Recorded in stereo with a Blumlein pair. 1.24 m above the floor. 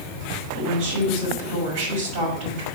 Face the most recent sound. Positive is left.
turn(degrees=-45)